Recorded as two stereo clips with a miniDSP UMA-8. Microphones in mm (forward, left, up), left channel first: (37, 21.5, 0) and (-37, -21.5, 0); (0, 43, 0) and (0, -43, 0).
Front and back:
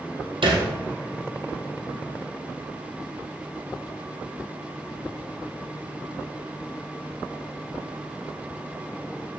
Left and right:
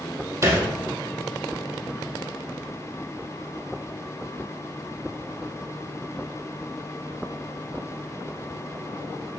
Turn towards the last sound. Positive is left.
turn(degrees=-145)